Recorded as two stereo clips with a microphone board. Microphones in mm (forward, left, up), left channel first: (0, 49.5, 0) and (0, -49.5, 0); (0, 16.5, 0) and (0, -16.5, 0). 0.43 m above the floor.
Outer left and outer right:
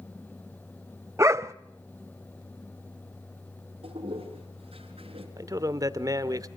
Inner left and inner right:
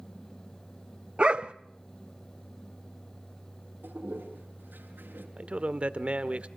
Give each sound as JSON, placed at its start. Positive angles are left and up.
{"t": 1.2, "sound": "a dog barking", "side_deg": -30, "distance_m": 0.6}
{"t": 3.8, "sound": "a toilet flushing", "side_deg": -75, "distance_m": 5.5}
{"t": 5.4, "sound": "a man speaking", "side_deg": -35, "distance_m": 1.1}